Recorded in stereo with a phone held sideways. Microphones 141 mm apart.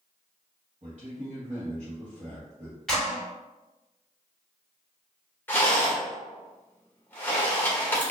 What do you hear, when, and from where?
0.8 s a man speaking: 50° right (ahead or behind), 1.3 m
2.9 s a clap: 5° left (ahead or behind), 1.8 m
5.5 s a rattle: 15° left (ahead or behind), 1.4 m